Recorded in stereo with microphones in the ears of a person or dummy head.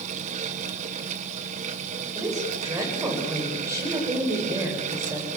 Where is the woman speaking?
20° right (ahead or behind), 7.5 m.